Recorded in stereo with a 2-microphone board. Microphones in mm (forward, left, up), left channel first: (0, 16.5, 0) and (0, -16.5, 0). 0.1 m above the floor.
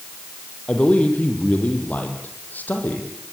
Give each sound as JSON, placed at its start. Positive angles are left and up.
{"t": 0.7, "sound": "a man speaking", "side_deg": 35, "distance_m": 4.5}